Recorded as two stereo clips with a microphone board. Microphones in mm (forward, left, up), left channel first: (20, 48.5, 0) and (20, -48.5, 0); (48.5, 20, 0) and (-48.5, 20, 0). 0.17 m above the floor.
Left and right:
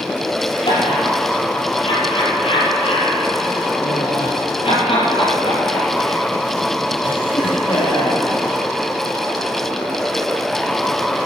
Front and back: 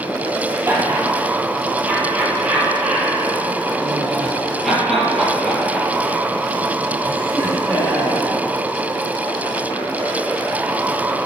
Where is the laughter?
115° left, 5.5 m; by 8.2 s 65° left, 5.5 m.